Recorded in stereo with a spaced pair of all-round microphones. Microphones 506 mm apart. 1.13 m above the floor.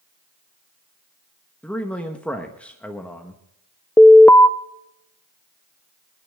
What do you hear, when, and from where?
1.6 s a man speaking: 5° left (ahead or behind), 1.1 m
4.0 s an alarm: 5° left (ahead or behind), 0.5 m